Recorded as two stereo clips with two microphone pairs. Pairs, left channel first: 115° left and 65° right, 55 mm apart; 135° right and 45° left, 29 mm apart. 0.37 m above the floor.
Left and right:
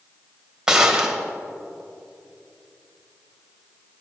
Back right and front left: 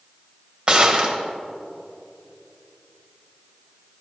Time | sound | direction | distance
0.7 | a gunshot | 10° left | 1.8 m